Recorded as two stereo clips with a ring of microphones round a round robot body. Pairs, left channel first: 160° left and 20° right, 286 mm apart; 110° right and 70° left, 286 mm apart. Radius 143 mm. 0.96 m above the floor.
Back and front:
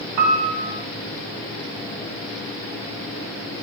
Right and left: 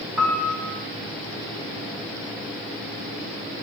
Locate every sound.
0.2 s a piano: 15° right, 0.7 m